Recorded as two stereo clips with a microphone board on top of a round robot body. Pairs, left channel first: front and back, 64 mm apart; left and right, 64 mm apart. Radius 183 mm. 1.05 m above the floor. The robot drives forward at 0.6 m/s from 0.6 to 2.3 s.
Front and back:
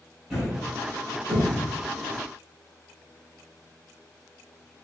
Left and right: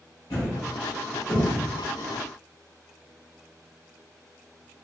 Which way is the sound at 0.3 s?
95° left.